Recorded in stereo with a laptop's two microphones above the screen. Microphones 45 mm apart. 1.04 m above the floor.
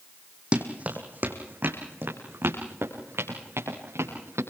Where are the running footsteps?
25° right (ahead or behind), 3 m; by 4.4 s 70° right (ahead or behind), 7.5 m.